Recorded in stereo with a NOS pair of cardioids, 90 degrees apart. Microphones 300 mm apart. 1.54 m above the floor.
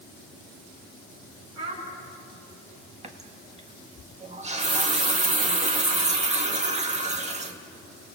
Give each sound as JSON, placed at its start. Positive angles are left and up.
{"t": 1.6, "sound": "a child speaking", "azimuth_deg": -60, "distance_m": 7.0}
{"t": 3.0, "sound": "a running tap", "azimuth_deg": -25, "distance_m": 1.8}